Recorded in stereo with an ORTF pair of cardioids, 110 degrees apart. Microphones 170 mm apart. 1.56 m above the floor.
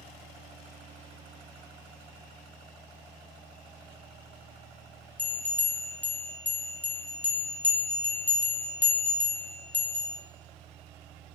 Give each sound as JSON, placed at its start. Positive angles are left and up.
{"t": 5.2, "sound": "a bell", "azimuth_deg": 10, "distance_m": 0.7}